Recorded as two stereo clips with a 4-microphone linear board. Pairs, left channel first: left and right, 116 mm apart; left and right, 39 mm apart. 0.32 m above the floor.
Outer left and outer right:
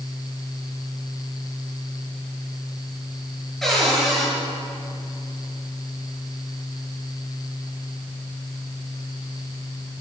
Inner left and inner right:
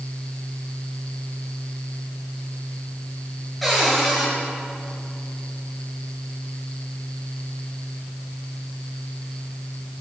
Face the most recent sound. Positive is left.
turn(degrees=0)  # may be behind; listen again after turning